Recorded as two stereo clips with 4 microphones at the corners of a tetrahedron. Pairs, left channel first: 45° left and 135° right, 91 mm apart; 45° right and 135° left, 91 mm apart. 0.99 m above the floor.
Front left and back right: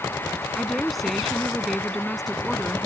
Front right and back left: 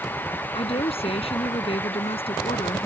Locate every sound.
0.6 s a woman speaking: 45° right